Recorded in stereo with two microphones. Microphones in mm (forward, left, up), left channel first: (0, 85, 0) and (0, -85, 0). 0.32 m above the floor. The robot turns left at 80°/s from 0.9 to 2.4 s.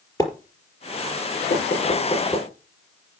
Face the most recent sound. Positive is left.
turn(degrees=10)  # may be behind; listen again after turning